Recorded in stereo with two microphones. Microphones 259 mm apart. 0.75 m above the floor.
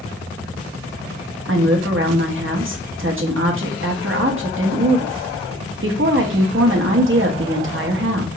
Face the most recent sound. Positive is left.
turn(degrees=-50)  # may be behind; listen again after turning